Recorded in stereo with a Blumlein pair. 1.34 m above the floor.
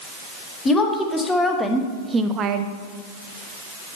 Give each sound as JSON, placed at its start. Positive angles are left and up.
{"t": 0.7, "sound": "a woman speaking", "azimuth_deg": 15, "distance_m": 2.0}